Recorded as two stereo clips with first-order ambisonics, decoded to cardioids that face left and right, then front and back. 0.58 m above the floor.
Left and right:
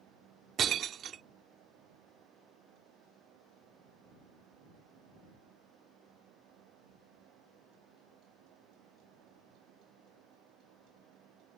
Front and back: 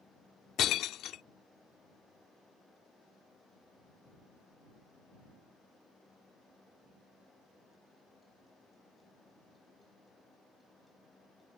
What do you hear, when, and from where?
0.6 s breaking glass: 40° right